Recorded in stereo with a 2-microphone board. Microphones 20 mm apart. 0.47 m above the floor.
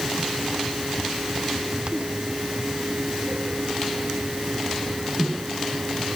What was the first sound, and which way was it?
Only background noise.